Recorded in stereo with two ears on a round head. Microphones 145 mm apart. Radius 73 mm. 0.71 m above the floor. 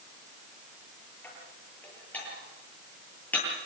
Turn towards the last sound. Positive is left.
turn(degrees=10)  # may be behind; listen again after turning